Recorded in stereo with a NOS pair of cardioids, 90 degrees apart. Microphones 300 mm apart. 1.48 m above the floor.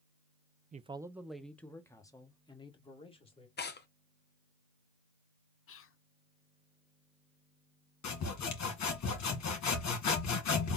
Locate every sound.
0.7 s a man speaking: 25° right, 0.5 m; by 3.5 s 20° left, 2.5 m
3.6 s tearing paper: 30° left, 1.0 m
5.7 s whispering: 45° left, 0.7 m
8.0 s sawing: 60° left, 1.7 m